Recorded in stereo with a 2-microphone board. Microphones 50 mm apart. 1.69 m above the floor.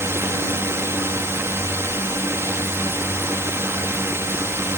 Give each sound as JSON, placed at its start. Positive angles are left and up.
{"t": 0.0, "sound": "a drone", "side_deg": -60}